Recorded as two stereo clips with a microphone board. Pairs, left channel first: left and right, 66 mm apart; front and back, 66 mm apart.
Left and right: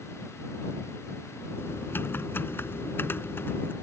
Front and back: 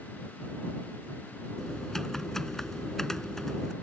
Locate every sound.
1.6 s typing on a keyboard: 80° left